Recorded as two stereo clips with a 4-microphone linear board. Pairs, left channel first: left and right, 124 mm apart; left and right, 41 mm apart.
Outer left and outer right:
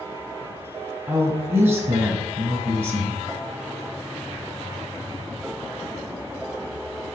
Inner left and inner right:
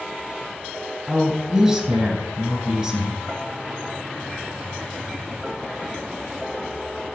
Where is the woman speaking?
20° right (ahead or behind), 1.3 m.